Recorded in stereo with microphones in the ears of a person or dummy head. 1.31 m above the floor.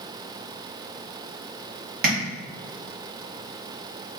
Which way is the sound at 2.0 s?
50° right (ahead or behind).